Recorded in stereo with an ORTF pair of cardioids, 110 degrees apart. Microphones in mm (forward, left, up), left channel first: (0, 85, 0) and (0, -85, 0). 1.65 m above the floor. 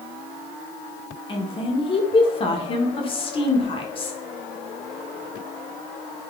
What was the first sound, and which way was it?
A woman speaking, 30° left.